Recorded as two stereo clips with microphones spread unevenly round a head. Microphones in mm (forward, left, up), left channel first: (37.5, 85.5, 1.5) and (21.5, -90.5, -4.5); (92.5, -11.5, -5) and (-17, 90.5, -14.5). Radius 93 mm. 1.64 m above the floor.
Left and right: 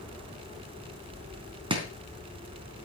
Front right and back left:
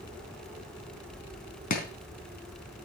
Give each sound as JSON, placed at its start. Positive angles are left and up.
{"t": 1.7, "sound": "chopping", "azimuth_deg": -35, "distance_m": 3.5}